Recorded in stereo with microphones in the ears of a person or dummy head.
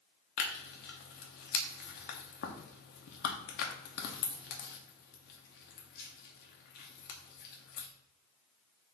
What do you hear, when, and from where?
0.4 s tearing paper: 50° left (ahead or behind), 0.9 m